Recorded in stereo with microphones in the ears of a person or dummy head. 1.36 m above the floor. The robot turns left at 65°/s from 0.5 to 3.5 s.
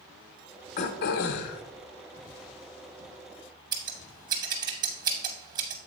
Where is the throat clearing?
135° left, 0.6 m; by 1.6 s 75° left, 0.6 m.